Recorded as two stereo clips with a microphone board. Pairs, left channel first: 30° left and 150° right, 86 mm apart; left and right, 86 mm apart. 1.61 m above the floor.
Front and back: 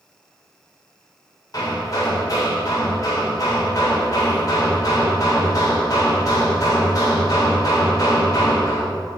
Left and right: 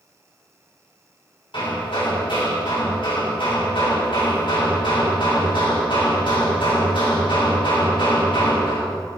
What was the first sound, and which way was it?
Hammering, 75° left.